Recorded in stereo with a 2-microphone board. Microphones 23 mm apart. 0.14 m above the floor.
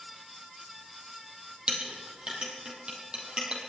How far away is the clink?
About 3 m.